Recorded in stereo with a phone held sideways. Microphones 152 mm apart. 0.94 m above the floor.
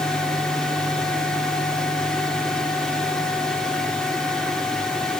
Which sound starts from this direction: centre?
A fan, at 0.0 s.